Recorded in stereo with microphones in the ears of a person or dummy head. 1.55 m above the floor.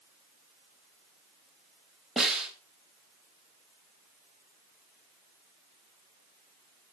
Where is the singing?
No singing in this recording.